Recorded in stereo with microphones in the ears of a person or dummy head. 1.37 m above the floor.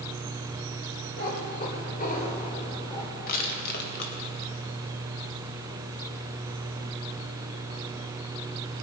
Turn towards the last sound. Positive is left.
turn(degrees=45)  # may be behind; listen again after turning